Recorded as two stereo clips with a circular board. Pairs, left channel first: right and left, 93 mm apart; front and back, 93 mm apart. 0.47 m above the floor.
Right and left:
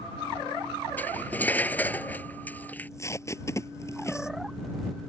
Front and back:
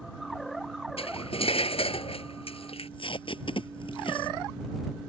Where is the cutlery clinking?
15° right.